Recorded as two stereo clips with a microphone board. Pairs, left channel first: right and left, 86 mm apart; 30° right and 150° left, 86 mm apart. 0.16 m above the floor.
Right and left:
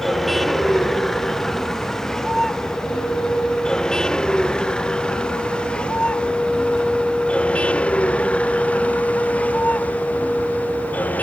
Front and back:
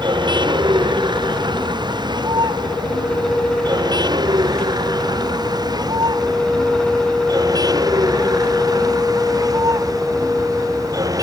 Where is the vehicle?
Straight behind; by 11.2 s 165° right.